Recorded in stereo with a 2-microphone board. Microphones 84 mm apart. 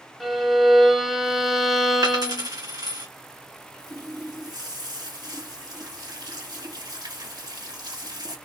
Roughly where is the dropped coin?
Right.